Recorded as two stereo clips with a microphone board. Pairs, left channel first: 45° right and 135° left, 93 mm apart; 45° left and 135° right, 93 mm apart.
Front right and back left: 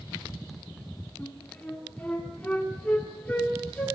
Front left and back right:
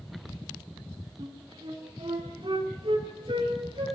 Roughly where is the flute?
Behind right.